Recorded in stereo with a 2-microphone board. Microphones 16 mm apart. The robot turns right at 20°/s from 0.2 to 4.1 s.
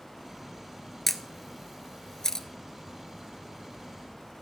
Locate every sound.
1.1 s a camera shutter: 10° left (ahead or behind), 0.8 m; by 2.5 s 35° left (ahead or behind), 0.8 m